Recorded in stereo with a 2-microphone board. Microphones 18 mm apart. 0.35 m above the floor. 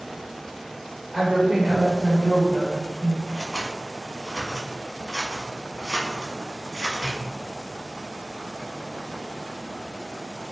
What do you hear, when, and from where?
1.1 s a woman speaking: 20° right (ahead or behind), 1.3 m; by 3.2 s 15° right (ahead or behind), 1.6 m
3.3 s scissors: 45° right (ahead or behind), 1.0 m